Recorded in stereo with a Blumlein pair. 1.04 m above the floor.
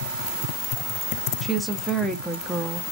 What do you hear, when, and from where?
1.4 s a woman speaking: 5° right, 0.6 m